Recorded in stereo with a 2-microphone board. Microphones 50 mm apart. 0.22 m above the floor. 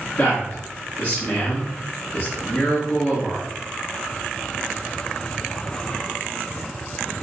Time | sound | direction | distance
0.2 | a man speaking | 55° left (ahead or behind) | 1.8 m